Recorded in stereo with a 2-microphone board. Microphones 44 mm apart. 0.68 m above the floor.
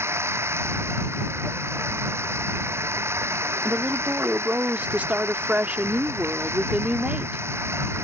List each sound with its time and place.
0.0 s running water: 90° right
3.6 s a woman speaking: 35° right (ahead or behind)